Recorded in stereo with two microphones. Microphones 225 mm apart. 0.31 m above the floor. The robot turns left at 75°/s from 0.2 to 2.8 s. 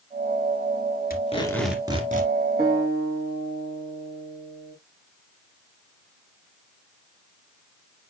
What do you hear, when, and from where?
1.1 s tape being pulled: 40° left, 1.9 m; by 2.3 s 50° right, 1.9 m
2.6 s a guitar: 40° right (ahead or behind), 5 m; by 4.8 s 55° right (ahead or behind), 5 m